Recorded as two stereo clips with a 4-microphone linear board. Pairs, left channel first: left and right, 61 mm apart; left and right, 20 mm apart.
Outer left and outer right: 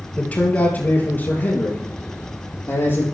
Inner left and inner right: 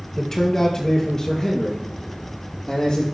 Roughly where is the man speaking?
Left.